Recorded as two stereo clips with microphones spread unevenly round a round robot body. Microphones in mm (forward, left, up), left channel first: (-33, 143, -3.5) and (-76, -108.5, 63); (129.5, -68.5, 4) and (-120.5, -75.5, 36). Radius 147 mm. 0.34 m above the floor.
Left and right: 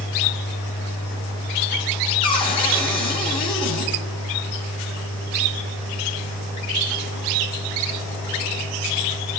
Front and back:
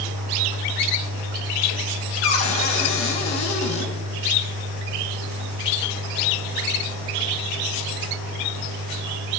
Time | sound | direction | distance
2.2 | a cupboard door | 20° left | 2 m